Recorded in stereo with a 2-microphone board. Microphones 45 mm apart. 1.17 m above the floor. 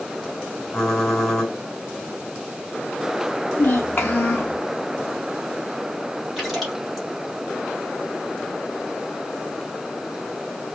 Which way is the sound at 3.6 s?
35° left (ahead or behind).